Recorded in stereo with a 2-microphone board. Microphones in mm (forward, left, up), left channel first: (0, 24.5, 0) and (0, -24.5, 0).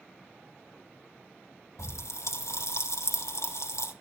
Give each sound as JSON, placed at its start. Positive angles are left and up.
{"t": 1.8, "sound": "a pop", "side_deg": 80, "distance_m": 3.5}